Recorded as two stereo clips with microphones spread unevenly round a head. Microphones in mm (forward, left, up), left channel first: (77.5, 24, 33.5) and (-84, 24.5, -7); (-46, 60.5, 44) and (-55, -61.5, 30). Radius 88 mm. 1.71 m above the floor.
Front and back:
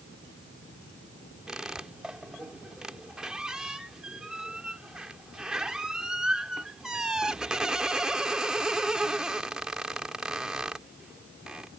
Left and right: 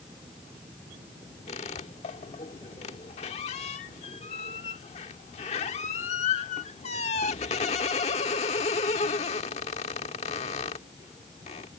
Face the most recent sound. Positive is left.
turn(degrees=80)